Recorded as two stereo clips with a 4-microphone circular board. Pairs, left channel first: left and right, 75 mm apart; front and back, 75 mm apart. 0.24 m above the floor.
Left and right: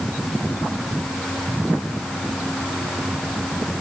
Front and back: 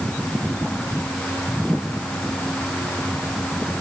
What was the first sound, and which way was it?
Only background noise.